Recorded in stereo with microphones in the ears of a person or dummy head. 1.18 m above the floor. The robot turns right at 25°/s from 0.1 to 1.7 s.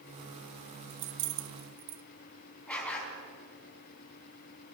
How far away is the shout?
No shout in this recording.